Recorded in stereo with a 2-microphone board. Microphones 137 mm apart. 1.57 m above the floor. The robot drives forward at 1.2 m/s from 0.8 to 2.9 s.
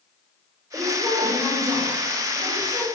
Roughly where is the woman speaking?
Right.